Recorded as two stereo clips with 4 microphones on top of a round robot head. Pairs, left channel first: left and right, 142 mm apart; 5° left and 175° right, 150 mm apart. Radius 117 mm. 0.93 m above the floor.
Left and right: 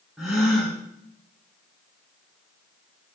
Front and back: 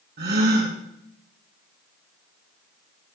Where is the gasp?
Straight behind, 4 m.